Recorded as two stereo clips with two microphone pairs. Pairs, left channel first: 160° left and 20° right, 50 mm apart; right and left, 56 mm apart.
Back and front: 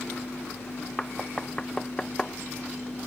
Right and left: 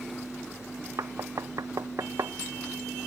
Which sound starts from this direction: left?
Knocking, at 1.0 s.